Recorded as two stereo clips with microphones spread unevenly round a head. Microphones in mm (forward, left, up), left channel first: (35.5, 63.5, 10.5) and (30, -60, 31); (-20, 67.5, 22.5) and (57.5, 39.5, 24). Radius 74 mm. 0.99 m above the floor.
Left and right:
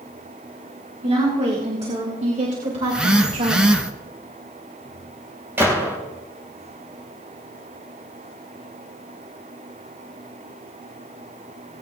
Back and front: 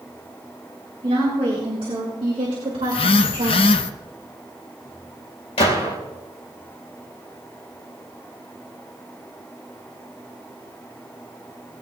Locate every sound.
1.0 s a woman speaking: 55° right, 4.5 m; by 3.8 s 65° right, 3 m
2.8 s a phone buzzing: straight behind, 0.6 m
5.6 s a gunshot: 170° right, 3 m